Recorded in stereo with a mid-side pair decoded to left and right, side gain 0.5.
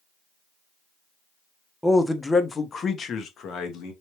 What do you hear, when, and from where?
1.8 s a man speaking: 5° left, 0.9 m; by 3.9 s 65° left, 1.3 m